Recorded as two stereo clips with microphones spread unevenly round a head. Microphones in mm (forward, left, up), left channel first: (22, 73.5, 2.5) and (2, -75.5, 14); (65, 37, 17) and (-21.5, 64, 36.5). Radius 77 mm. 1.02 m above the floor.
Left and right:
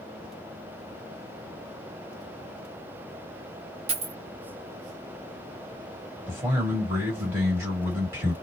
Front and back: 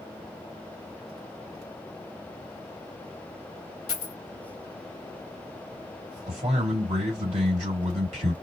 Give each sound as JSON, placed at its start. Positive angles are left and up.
{"t": 3.9, "sound": "a dropped coin", "azimuth_deg": -70, "distance_m": 0.7}
{"t": 6.3, "sound": "a man speaking", "azimuth_deg": -175, "distance_m": 1.9}